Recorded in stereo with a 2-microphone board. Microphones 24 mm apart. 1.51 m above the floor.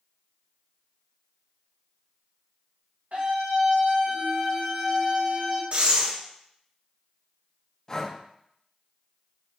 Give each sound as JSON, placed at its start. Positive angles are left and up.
{"t": 3.1, "sound": "a scream", "side_deg": -75, "distance_m": 2.0}
{"t": 5.7, "sound": "breathing", "side_deg": -50, "distance_m": 0.8}
{"t": 7.9, "sound": "breathing", "side_deg": 25, "distance_m": 0.5}